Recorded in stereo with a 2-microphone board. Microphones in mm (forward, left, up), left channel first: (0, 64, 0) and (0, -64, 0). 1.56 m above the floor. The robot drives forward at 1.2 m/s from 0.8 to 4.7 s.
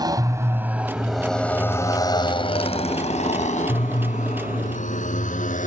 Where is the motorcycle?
30° right (ahead or behind); by 5.7 s 80° left.